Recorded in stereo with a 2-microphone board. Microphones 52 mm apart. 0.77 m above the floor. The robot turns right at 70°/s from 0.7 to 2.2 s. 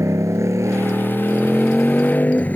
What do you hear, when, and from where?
0.0 s a motorcycle: 75° right; by 2.6 s 30° left